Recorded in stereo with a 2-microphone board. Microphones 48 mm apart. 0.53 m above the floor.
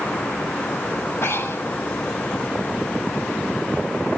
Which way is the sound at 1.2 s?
55° left (ahead or behind).